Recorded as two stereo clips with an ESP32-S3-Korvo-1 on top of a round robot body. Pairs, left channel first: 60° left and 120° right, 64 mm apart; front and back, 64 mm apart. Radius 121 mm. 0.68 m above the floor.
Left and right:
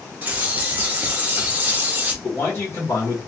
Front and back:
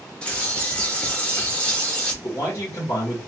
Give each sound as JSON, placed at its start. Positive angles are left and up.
{"t": 0.2, "sound": "a bird", "azimuth_deg": -65, "distance_m": 1.0}
{"t": 2.2, "sound": "a man speaking", "azimuth_deg": 25, "distance_m": 1.6}